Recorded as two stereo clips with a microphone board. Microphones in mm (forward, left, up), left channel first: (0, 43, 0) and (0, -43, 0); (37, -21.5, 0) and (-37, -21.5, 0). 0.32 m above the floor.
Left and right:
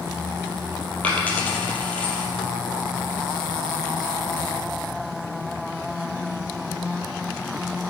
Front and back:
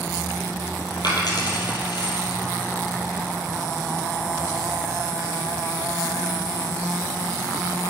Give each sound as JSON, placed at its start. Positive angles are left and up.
{"t": 1.0, "sound": "a dropped coin", "azimuth_deg": 15, "distance_m": 3.0}